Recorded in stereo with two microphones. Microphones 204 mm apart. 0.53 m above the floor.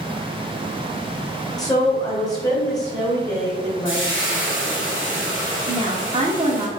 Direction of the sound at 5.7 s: 30° right (ahead or behind).